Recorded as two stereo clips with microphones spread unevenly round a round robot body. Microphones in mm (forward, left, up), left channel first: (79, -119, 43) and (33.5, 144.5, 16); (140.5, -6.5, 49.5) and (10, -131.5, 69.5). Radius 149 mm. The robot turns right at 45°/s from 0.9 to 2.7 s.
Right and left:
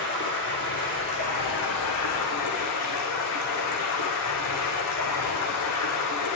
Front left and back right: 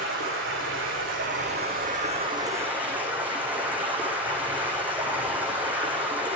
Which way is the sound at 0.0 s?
135° right.